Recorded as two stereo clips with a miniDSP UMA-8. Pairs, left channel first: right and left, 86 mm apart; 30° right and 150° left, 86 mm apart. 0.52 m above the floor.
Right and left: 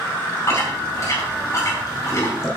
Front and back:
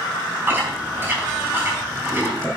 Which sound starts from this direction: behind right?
Chewing, at 0.5 s.